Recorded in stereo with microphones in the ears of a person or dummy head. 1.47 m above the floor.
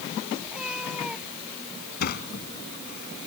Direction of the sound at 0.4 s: 10° right (ahead or behind).